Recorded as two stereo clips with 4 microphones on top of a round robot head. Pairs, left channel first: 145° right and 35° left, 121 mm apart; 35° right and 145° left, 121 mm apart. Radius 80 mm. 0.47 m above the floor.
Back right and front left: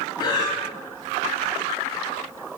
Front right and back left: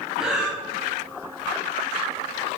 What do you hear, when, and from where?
0.2 s breathing: 135° right, 0.6 m